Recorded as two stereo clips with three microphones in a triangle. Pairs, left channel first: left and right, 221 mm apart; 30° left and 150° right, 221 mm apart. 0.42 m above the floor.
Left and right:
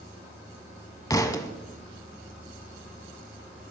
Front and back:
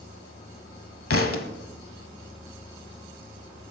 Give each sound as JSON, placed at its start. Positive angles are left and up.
{"t": 1.1, "sound": "a thud", "azimuth_deg": 20, "distance_m": 0.8}